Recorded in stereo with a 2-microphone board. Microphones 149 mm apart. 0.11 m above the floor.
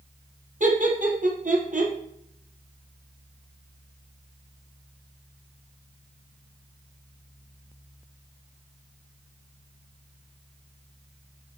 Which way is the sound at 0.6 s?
65° right (ahead or behind).